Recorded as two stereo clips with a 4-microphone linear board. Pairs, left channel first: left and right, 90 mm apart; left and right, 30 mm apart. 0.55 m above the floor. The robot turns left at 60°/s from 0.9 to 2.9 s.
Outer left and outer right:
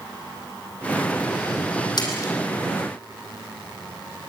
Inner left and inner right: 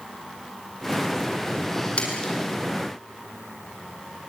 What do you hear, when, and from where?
2.0 s a splash: 55° left (ahead or behind), 5 m; by 2.3 s 30° left (ahead or behind), 5 m